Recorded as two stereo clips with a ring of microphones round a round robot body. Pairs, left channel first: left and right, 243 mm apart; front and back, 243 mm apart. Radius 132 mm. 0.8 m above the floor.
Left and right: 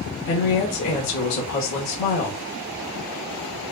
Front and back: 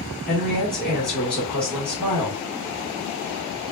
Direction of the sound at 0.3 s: 85° left.